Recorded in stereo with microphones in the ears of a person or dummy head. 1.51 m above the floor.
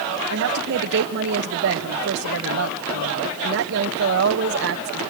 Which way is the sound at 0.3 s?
60° right (ahead or behind).